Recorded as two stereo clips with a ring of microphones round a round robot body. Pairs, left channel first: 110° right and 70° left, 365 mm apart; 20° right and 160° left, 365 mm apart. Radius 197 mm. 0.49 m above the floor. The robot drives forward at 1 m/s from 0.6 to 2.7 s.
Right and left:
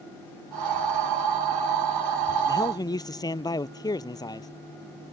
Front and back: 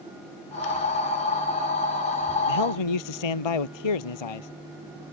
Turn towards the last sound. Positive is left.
turn(degrees=-30)